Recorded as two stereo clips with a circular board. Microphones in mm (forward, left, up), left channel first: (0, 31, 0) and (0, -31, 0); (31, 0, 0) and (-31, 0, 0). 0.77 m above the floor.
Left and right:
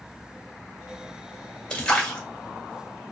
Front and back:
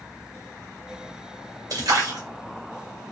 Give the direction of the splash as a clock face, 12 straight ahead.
6 o'clock.